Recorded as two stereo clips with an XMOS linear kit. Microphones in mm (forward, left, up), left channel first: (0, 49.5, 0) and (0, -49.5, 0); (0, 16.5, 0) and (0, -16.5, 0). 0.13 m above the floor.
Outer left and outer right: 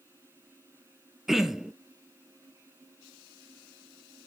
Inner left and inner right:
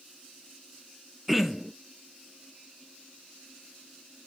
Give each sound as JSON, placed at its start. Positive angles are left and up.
{"t": 1.3, "sound": "throat clearing", "side_deg": -5, "distance_m": 0.8}